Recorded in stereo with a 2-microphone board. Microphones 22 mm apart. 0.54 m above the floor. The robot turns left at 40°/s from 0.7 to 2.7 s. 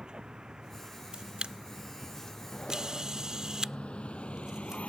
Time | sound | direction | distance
0.0 | a vehicle | 40° right (ahead or behind) | ?
1.1 | a camera shutter | 50° right (ahead or behind) | ?